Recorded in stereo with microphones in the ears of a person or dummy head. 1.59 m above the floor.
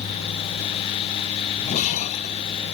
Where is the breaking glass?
50° left (ahead or behind).